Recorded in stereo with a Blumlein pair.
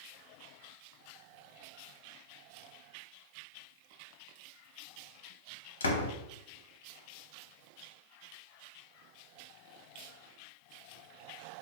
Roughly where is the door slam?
Left.